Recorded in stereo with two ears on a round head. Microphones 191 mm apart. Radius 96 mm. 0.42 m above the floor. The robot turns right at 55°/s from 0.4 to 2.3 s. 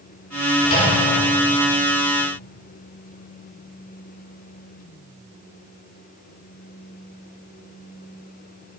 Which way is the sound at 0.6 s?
35° left (ahead or behind).